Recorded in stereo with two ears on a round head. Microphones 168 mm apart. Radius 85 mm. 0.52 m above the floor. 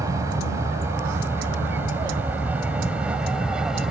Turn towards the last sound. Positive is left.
turn(degrees=-5)  # may be behind; listen again after turning